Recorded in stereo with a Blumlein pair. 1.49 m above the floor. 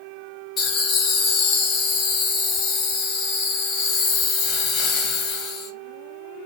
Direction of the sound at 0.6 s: 25° left.